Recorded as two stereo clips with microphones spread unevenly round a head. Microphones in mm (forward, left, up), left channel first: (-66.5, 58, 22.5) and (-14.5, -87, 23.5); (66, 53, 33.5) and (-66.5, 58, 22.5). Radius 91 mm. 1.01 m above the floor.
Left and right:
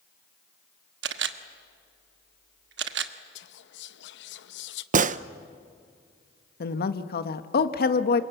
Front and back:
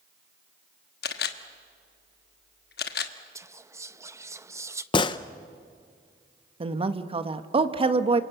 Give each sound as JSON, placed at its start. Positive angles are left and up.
{"t": 1.0, "sound": "a camera shutter", "azimuth_deg": -35, "distance_m": 1.2}
{"t": 3.4, "sound": "whispering", "azimuth_deg": 105, "distance_m": 0.8}
{"t": 4.9, "sound": "a gunshot", "azimuth_deg": -55, "distance_m": 0.7}
{"t": 6.6, "sound": "a woman speaking", "azimuth_deg": 130, "distance_m": 1.3}